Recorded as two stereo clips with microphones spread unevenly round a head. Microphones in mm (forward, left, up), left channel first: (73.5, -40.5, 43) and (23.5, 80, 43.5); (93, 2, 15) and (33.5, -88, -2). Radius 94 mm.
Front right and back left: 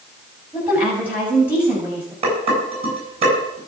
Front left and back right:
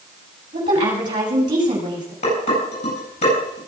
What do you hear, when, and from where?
0.5 s a woman speaking: 165° right, 7.5 m
2.2 s dishes clattering: 70° left, 9 m